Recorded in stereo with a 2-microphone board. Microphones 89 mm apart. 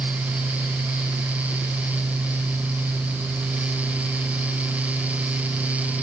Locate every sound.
Only background noise.